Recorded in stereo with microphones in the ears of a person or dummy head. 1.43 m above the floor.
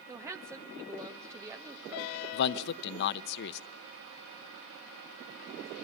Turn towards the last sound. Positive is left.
turn(degrees=65)  # may be behind; listen again after turning